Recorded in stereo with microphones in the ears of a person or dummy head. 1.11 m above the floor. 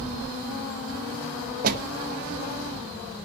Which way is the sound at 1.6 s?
45° right (ahead or behind).